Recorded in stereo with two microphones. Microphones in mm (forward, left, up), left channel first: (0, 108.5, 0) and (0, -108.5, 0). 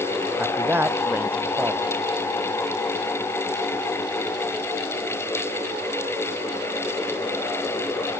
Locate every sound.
0.4 s a man speaking: 10° right (ahead or behind)